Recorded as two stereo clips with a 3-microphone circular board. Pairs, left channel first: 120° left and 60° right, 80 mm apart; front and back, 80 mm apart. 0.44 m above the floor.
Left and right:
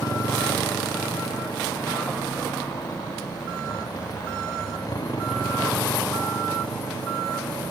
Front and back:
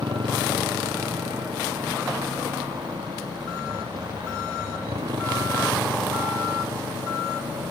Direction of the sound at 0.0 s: 165° left.